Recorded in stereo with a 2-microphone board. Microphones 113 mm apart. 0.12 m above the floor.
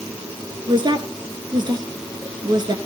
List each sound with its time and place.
0.7 s a woman speaking: 40° right (ahead or behind), 1.3 m